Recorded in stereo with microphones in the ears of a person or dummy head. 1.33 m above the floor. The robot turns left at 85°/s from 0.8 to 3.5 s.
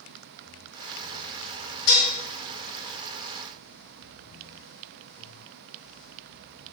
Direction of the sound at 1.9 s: 70° left (ahead or behind).